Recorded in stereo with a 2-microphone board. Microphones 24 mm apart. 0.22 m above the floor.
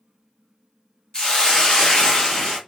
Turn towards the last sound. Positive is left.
turn(degrees=35)  # may be behind; listen again after turning